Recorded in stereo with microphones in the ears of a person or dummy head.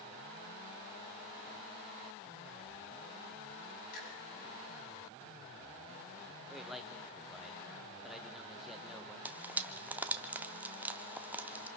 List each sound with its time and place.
3.9 s a finger snap: 60° left (ahead or behind), 8 m
6.5 s a man speaking: centre (ahead or behind), 1.5 m
9.2 s frying: 10° right (ahead or behind), 0.6 m